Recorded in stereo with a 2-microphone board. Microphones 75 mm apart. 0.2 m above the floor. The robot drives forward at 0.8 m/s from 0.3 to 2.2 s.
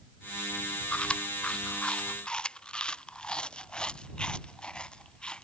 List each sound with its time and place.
0.9 s chewing: 15° left (ahead or behind); by 5.5 s 10° left (ahead or behind)